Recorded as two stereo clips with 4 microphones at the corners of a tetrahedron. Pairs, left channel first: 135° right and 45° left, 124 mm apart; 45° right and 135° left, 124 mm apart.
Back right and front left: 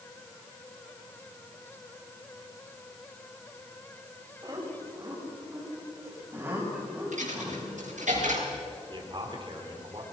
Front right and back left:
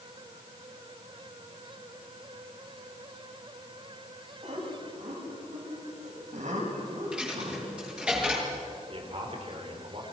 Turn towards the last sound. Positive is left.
turn(degrees=95)